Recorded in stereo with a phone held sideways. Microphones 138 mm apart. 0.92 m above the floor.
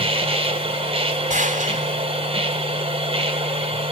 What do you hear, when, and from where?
0.0 s a machine running: 45° right (ahead or behind), 1.9 m
1.3 s a gunshot: 70° right (ahead or behind), 2.5 m